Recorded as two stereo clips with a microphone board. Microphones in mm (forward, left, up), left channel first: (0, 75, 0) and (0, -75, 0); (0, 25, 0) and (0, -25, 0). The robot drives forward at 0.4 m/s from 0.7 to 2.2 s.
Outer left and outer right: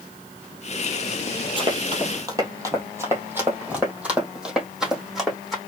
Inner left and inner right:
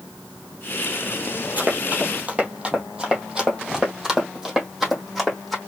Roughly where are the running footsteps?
Right.